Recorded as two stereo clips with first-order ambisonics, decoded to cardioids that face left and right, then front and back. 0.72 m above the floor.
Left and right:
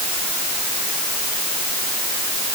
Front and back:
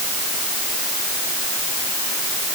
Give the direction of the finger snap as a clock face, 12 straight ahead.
I don't hear a finger snap.